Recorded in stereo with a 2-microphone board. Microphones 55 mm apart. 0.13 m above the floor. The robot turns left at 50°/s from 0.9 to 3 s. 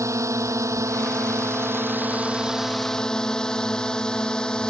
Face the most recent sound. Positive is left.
turn(degrees=15)  # may be behind; listen again after turning